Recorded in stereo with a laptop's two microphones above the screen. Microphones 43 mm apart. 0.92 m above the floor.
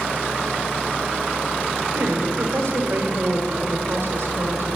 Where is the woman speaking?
80° right, 1.0 m.